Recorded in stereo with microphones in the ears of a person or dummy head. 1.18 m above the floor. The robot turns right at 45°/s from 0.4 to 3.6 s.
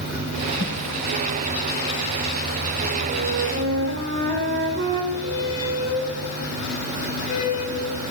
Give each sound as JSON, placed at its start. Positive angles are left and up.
{"t": 0.6, "sound": "a whoosh", "side_deg": 45, "distance_m": 9.5}
{"t": 3.1, "sound": "a flute", "side_deg": -35, "distance_m": 4.0}
{"t": 5.1, "sound": "a squeak", "side_deg": 35, "distance_m": 5.5}